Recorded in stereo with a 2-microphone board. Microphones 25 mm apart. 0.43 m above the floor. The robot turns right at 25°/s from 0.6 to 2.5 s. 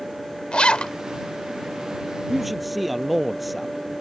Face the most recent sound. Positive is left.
turn(degrees=-5)  # may be behind; listen again after turning